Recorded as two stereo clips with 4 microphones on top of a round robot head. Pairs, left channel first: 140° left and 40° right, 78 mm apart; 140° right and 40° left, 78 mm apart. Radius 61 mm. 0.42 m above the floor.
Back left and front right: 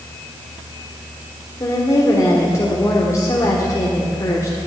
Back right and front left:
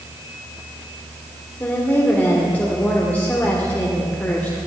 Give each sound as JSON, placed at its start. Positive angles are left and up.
{"t": 1.6, "sound": "a woman speaking", "azimuth_deg": 160, "distance_m": 1.7}